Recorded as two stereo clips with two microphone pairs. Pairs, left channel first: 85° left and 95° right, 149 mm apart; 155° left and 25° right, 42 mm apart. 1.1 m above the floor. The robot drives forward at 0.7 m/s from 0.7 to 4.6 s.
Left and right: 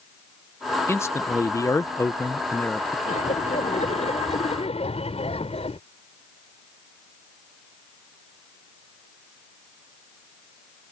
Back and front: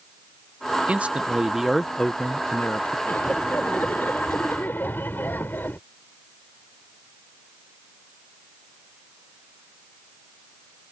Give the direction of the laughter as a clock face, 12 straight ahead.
8 o'clock.